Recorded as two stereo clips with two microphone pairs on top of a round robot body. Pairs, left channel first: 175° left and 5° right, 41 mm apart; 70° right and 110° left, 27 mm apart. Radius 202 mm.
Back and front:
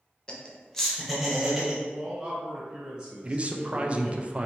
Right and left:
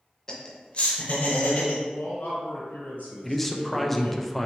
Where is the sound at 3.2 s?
10° left, 0.6 m.